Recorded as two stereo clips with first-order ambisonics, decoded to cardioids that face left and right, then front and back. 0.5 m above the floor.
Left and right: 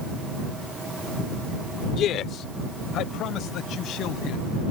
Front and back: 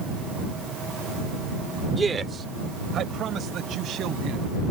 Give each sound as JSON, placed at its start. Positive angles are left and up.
{"t": 1.9, "sound": "a man speaking", "azimuth_deg": 110}